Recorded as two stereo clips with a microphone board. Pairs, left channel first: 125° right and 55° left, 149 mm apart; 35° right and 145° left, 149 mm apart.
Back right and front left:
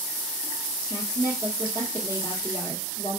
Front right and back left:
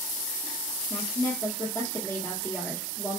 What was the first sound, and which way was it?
A woman speaking, 95° right.